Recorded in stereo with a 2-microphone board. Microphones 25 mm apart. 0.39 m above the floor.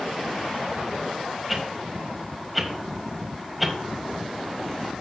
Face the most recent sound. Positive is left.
turn(degrees=-5)  # may be behind; listen again after turning